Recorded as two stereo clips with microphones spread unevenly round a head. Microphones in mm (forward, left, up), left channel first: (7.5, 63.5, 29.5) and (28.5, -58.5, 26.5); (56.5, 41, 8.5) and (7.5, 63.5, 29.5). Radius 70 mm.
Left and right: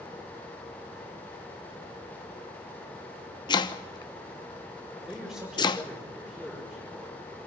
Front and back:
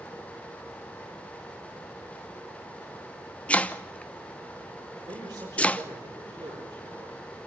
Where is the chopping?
45° left, 1.1 m.